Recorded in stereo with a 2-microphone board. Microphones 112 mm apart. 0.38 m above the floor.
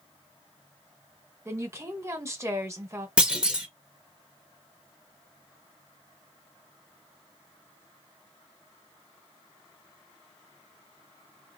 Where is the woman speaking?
25° right (ahead or behind), 1.2 m.